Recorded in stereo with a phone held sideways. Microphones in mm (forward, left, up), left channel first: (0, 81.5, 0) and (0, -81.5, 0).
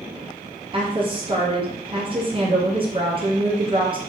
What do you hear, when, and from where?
0.7 s a woman speaking: 30° right (ahead or behind), 0.8 m